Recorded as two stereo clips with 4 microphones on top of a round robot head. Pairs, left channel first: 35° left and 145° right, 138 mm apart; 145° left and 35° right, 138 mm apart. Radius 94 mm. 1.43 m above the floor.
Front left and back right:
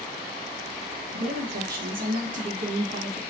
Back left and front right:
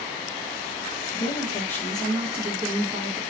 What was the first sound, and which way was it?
A woman speaking, 155° right.